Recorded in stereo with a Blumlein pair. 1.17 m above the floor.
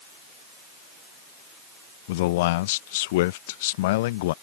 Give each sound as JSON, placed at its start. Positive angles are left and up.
{"t": 2.1, "sound": "a man speaking", "azimuth_deg": 50}